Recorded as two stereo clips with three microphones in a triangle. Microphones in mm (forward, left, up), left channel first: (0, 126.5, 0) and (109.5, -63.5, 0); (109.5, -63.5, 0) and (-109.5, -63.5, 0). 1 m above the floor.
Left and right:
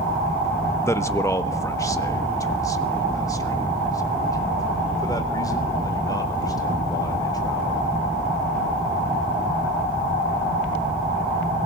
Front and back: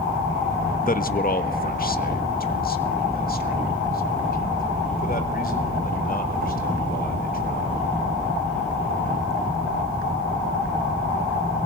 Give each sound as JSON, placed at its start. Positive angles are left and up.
{"t": 0.9, "sound": "a man speaking", "azimuth_deg": 45, "distance_m": 1.1}